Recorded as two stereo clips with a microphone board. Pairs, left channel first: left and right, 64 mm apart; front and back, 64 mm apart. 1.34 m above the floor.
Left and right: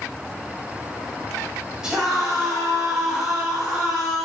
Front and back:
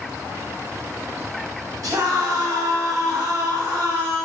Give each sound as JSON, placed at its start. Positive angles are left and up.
{"t": 1.8, "sound": "a scream", "azimuth_deg": -170, "distance_m": 7.0}